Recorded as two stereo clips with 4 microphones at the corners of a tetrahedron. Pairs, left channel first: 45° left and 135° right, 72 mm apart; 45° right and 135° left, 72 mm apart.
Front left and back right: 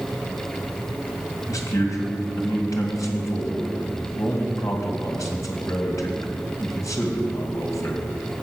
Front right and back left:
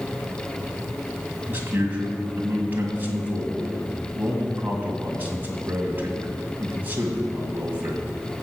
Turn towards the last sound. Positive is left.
turn(degrees=75)